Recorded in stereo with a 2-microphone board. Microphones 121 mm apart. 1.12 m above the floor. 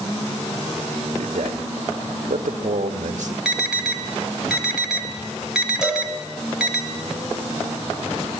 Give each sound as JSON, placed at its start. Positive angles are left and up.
{"t": 1.2, "sound": "a man speaking", "side_deg": -90, "distance_m": 1.5}
{"t": 3.5, "sound": "an alarm", "side_deg": -5, "distance_m": 2.0}
{"t": 5.8, "sound": "a cowbell", "side_deg": -5, "distance_m": 6.5}